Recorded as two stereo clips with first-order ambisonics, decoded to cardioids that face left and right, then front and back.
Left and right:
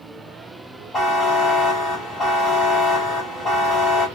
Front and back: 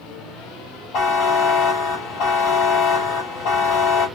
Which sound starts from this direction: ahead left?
A buzzer, at 0.9 s.